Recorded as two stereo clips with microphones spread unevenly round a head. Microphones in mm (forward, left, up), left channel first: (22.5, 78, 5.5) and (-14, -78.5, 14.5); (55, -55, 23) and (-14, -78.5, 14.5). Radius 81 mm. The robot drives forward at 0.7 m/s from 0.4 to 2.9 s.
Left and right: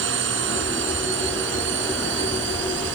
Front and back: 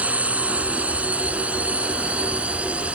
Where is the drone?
90° right.